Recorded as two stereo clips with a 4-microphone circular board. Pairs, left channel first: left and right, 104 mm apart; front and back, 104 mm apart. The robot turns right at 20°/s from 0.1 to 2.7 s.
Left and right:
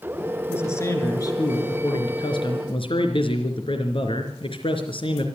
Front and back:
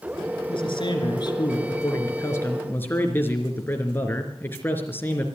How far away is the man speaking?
About 3.5 m.